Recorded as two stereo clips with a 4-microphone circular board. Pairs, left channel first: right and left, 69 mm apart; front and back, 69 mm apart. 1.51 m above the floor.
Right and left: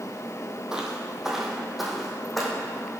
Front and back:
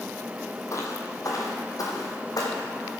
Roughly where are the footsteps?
Ahead.